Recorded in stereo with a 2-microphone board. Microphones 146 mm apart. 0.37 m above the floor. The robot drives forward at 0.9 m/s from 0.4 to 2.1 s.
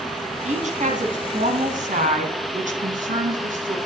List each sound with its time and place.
0.4 s a woman speaking: 60° right (ahead or behind), 3 m; by 3.8 s 70° right (ahead or behind), 3 m